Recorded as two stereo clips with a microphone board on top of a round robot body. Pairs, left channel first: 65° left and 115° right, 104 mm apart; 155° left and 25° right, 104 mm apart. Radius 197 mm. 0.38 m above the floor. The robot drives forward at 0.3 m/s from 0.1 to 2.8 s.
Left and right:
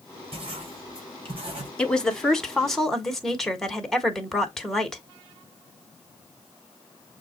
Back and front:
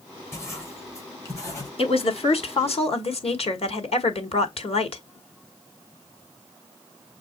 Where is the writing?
140° right, 3.5 m; by 1.7 s 145° right, 3.5 m.